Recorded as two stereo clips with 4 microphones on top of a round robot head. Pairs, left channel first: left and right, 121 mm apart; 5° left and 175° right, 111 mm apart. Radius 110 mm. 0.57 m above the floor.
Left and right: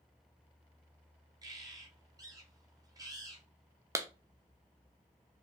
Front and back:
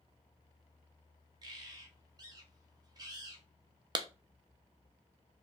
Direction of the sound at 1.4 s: 135° right.